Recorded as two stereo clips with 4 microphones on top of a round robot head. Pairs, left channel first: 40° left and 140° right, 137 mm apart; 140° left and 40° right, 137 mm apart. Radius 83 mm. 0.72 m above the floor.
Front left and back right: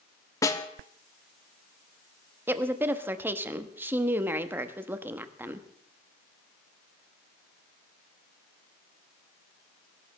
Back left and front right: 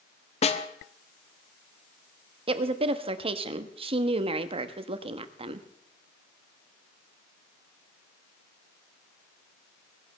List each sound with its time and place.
0.4 s a snare drum: 105° left, 1.0 m
2.5 s a woman speaking: 70° right, 1.0 m